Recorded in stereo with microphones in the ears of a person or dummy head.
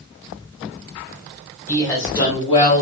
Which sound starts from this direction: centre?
A woman speaking, at 1.7 s.